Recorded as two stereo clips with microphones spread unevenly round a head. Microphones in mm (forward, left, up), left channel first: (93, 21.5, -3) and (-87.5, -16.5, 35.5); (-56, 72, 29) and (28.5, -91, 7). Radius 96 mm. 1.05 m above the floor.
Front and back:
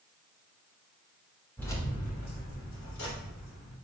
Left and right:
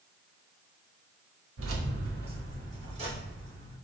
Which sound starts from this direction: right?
Keys jangling, at 1.6 s.